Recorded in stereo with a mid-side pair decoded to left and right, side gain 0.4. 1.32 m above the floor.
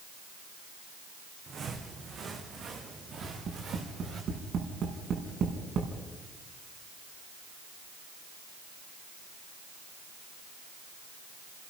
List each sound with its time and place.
1.5 s footsteps: 60° right, 4.5 m
3.2 s tapping: 65° right, 5.5 m